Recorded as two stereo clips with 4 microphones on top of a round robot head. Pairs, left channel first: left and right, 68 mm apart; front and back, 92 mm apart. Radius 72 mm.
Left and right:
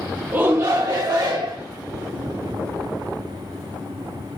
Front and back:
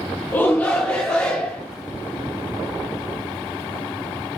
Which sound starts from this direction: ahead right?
A shout, at 0.3 s.